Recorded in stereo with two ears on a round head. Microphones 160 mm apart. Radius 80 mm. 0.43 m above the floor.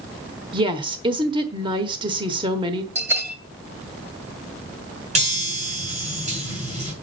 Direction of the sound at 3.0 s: 15° right (ahead or behind).